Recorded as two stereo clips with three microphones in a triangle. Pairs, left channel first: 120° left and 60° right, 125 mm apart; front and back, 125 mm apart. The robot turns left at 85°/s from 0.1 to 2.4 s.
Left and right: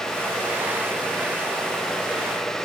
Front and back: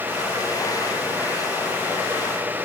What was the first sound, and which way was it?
Only background noise.